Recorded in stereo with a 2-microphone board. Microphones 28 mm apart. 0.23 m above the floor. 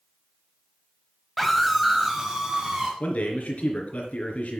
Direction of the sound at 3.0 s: 60° left (ahead or behind).